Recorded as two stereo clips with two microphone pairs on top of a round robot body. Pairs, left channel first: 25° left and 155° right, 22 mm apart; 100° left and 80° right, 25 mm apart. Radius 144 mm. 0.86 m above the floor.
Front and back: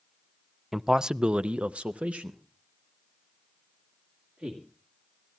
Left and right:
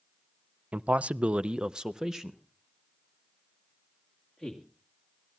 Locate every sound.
0.7 s a man speaking: 70° right, 0.6 m; by 4.6 s 175° right, 2 m